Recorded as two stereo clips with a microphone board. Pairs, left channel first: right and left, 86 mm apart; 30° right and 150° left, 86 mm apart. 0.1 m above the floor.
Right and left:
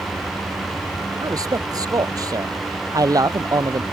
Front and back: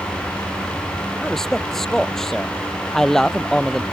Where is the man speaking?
55° left.